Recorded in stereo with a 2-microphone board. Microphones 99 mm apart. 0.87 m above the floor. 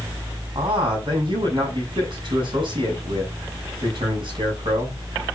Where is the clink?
No clink in this recording.